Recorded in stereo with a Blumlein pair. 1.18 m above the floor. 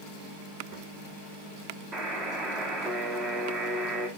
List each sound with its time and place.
1.9 s a buzzer: 20° right, 1.9 m